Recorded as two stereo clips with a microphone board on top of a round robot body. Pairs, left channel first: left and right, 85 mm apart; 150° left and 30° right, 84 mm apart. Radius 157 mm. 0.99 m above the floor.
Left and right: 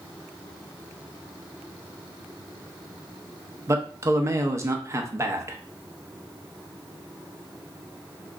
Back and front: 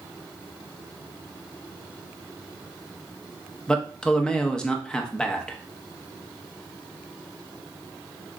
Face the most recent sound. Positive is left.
turn(degrees=-135)